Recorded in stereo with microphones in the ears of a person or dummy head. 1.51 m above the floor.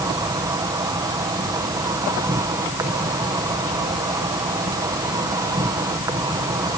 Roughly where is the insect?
Centre.